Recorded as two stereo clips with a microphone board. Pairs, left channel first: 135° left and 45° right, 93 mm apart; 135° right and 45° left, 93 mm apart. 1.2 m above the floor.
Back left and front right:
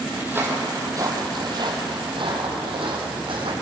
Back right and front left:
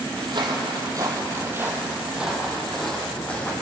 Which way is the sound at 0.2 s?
25° left.